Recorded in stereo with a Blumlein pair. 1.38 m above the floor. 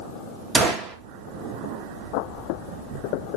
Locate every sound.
0.6 s a gunshot: 20° right, 0.7 m